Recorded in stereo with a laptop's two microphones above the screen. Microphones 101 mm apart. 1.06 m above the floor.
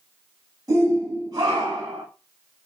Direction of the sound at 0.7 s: 35° right (ahead or behind).